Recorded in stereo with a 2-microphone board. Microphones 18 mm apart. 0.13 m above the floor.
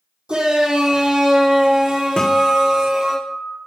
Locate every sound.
0.3 s a shout: 70° right (ahead or behind), 5 m; by 3.2 s 60° right (ahead or behind), 3.5 m
2.2 s a guitar: 55° left (ahead or behind), 2.5 m